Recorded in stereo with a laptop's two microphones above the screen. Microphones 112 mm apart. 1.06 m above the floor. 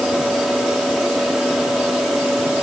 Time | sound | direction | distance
0.0 | a fan | 5° right (ahead or behind) | ?